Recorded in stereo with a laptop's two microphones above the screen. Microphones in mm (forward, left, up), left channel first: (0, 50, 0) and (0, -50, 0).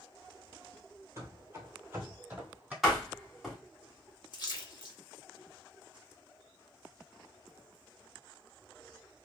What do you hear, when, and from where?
1.2 s running footsteps: 30° right (ahead or behind), 1.0 m; by 2.7 s 15° right (ahead or behind), 1.6 m
2.8 s a door slam: centre (ahead or behind), 1.4 m
4.3 s a splash: 50° left (ahead or behind), 0.9 m